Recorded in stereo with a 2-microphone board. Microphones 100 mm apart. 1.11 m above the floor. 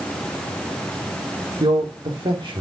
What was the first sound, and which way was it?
A man speaking, 55° right (ahead or behind).